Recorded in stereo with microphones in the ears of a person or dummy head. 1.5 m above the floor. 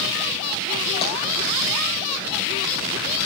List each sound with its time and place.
1.0 s tapping: 30° left (ahead or behind), 8 m